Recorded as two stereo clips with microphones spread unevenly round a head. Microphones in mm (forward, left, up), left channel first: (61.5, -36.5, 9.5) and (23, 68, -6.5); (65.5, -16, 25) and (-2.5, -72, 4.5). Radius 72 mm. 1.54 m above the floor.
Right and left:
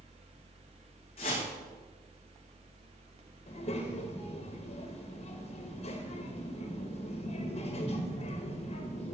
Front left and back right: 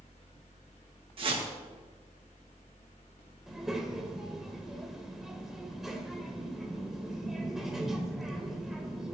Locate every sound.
0.0 s a fan: 80° left, 2.0 m
1.2 s a whoosh: 125° right, 2 m
3.5 s a child speaking: 50° right, 1.4 m